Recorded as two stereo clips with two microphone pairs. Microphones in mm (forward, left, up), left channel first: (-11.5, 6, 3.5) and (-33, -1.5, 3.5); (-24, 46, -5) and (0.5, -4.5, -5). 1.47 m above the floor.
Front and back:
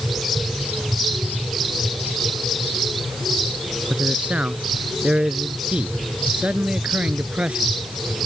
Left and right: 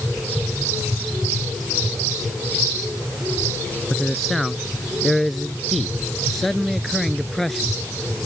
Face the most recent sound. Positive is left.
turn(degrees=-160)